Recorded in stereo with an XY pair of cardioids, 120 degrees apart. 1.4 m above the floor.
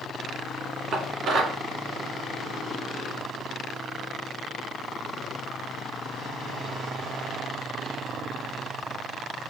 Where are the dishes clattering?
55° right, 2.0 m.